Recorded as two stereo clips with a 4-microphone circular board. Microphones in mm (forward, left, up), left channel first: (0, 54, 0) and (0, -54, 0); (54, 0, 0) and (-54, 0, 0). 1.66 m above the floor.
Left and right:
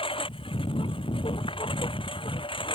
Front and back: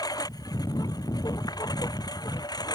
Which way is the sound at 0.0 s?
55° left.